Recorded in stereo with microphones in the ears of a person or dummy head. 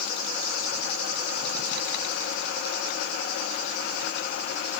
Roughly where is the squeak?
I don't hear a squeak.